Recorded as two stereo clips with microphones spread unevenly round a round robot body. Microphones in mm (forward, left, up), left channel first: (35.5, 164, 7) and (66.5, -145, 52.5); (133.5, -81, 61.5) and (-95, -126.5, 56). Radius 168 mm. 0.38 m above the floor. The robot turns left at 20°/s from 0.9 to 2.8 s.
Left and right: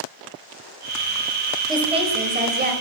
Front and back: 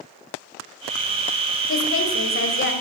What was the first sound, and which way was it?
A woman speaking, 5° right.